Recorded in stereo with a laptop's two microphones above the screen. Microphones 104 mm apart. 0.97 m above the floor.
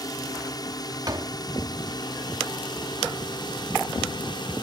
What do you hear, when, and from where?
0.0 s a drone: 35° left (ahead or behind); by 4.6 s 45° left (ahead or behind)
1.1 s a door slam: 40° right (ahead or behind)